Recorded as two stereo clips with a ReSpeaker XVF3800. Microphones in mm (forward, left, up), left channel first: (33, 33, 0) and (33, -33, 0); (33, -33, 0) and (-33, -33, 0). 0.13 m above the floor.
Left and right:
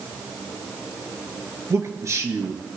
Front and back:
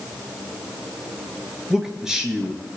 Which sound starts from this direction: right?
A man speaking, at 1.7 s.